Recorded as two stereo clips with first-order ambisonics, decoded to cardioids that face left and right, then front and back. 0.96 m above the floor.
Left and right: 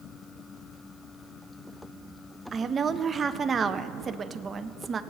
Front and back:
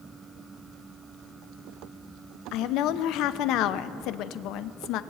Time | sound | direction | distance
2.5 | a woman speaking | 25° right | 0.5 m